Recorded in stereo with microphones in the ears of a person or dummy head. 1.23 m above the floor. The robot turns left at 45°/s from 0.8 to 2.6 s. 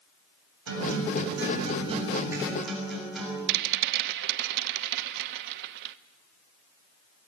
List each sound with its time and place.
0.7 s a guitar: 100° right, 6.5 m; by 3.4 s straight behind, 6.5 m
3.5 s a rattle: 60° right (ahead or behind), 0.8 m